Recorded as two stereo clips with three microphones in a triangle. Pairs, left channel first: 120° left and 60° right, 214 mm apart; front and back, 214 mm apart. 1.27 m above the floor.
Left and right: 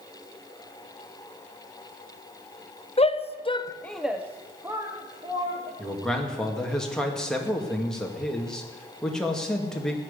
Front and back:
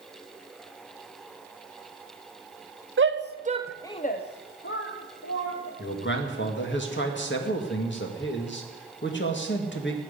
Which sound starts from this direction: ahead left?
A man speaking, at 5.8 s.